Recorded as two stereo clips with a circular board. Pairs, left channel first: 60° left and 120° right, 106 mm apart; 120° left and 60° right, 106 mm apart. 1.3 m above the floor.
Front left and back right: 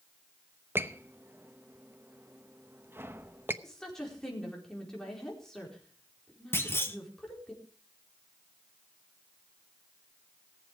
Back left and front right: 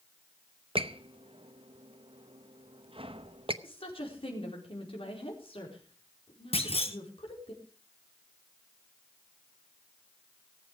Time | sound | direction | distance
0.8 | a squeak | 55° right | 0.8 m
3.6 | a woman speaking | 145° left | 4.5 m
6.5 | a clunk | 125° left | 1.4 m